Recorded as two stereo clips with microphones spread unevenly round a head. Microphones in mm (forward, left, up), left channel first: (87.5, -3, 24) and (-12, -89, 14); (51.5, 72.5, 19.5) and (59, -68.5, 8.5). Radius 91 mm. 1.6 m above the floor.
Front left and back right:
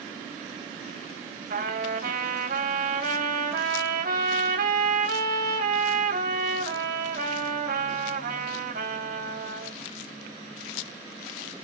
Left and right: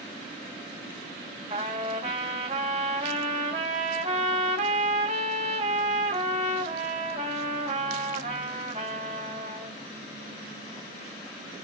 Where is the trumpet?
145° right, 3 m.